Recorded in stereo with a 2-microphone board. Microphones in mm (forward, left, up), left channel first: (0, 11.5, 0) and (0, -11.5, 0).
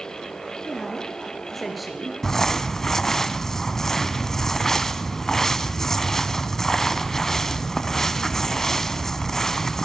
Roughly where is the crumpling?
Centre.